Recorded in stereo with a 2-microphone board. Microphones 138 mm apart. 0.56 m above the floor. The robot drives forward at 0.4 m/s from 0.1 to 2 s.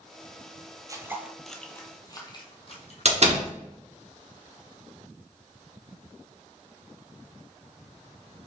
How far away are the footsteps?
About 0.6 m.